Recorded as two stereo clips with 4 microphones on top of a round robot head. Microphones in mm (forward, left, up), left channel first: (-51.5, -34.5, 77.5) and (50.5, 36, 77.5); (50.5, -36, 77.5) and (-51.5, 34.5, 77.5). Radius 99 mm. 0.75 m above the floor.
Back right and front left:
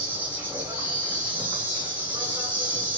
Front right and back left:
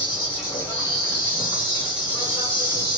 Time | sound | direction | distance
0.0 | an insect | 15° right | 1.3 m